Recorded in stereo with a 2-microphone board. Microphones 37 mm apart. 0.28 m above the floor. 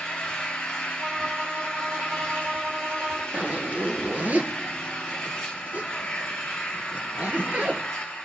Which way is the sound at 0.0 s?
25° left (ahead or behind).